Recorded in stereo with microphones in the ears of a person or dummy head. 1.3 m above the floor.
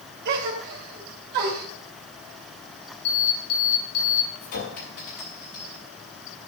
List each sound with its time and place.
0.2 s a gasp: 50° right (ahead or behind), 1.9 m
3.0 s an alarm: 85° left, 5 m
4.4 s a clink: 50° left (ahead or behind), 5.5 m